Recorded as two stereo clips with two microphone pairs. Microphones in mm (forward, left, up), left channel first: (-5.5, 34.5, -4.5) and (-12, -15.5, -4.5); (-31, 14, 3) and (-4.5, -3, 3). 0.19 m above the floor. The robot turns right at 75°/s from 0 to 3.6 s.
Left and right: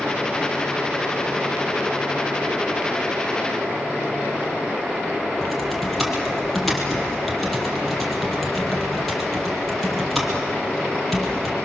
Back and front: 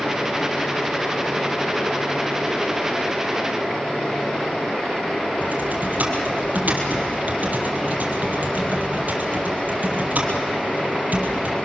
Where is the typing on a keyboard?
5° right, 3.5 m.